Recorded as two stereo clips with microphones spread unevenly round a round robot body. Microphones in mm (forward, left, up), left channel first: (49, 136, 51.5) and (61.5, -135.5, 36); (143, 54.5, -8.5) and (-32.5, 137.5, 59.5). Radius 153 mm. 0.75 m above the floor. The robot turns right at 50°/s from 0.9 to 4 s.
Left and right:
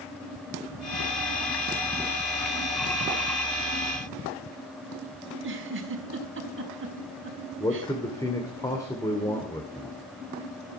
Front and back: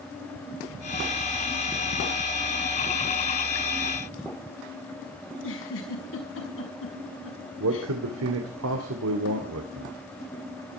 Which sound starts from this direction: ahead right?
A giggle, at 5.3 s.